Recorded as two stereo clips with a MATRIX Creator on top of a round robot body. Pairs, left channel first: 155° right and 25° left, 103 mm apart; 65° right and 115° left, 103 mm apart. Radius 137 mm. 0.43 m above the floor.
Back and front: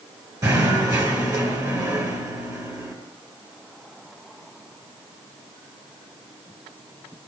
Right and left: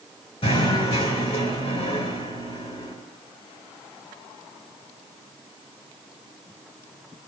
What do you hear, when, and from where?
0.4 s knocking: 35° right, 5.5 m